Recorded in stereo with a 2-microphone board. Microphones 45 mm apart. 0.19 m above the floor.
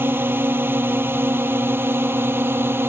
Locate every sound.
0.0 s a drone: 55° right (ahead or behind); by 2.9 s 60° right (ahead or behind)